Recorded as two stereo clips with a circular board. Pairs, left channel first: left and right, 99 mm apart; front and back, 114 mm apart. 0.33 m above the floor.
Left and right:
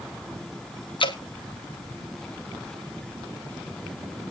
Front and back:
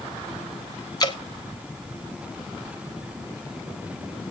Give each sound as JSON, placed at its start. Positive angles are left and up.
{"t": 1.0, "sound": "dripping", "azimuth_deg": 55, "distance_m": 1.7}